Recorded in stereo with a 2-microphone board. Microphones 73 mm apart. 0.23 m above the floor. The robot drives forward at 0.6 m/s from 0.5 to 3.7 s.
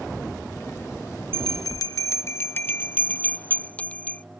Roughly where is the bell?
Left.